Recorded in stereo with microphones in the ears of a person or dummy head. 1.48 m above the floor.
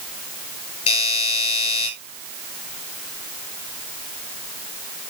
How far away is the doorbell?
About 8.5 m.